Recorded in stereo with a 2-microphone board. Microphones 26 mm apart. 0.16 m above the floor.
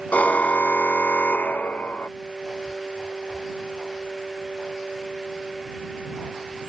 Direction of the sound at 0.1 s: 65° left (ahead or behind).